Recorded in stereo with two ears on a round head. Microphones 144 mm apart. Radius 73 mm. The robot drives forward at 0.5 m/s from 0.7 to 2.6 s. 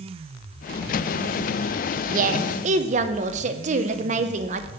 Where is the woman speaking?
55° right (ahead or behind), 0.7 m; by 4.7 s 50° right (ahead or behind), 0.8 m.